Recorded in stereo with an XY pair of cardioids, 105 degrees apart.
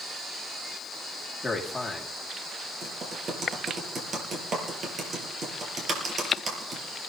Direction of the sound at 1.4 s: 10° left.